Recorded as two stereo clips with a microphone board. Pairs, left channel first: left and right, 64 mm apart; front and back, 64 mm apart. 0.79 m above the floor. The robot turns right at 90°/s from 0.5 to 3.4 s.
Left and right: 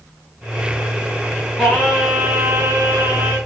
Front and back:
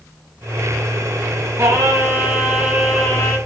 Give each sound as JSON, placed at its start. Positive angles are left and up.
{"t": 1.6, "sound": "singing", "azimuth_deg": 165, "distance_m": 1.4}